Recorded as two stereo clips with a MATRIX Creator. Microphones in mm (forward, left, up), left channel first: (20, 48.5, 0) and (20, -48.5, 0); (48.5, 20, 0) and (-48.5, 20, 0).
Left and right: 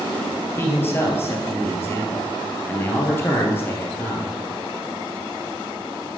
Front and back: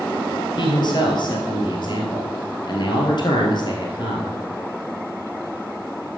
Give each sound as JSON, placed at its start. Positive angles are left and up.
{"t": 0.6, "sound": "a man speaking", "azimuth_deg": 30, "distance_m": 2.0}